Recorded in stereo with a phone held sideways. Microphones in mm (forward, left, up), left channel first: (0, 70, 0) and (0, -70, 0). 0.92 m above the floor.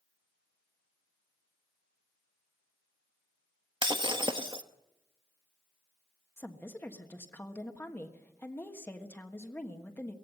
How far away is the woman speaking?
About 1.4 m.